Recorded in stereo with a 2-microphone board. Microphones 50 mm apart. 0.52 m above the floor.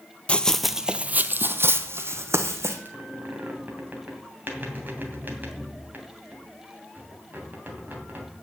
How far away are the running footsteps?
About 0.6 m.